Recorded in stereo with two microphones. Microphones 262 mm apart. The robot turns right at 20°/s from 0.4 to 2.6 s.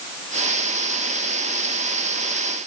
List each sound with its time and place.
Only background noise.